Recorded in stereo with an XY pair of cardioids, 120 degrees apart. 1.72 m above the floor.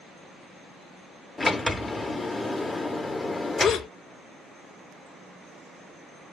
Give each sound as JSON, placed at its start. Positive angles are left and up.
{"t": 1.4, "sound": "a sliding door", "azimuth_deg": 15, "distance_m": 0.6}
{"t": 3.6, "sound": "a gasp", "azimuth_deg": 55, "distance_m": 0.6}